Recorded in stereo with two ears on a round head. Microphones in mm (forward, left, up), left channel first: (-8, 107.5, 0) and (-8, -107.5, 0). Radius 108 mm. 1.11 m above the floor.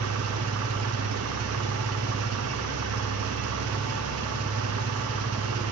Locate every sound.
0.0 s an engine running: 70° right (ahead or behind), 0.8 m